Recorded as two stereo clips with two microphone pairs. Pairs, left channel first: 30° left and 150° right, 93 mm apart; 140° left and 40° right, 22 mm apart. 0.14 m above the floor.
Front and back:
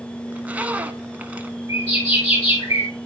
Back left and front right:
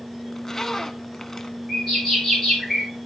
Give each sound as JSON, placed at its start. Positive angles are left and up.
{"t": 0.3, "sound": "a zipper", "azimuth_deg": 165, "distance_m": 0.9}
{"t": 1.7, "sound": "a bird", "azimuth_deg": 50, "distance_m": 6.0}